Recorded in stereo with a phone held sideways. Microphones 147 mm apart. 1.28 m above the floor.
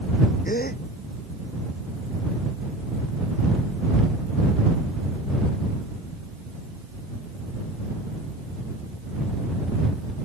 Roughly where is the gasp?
Left.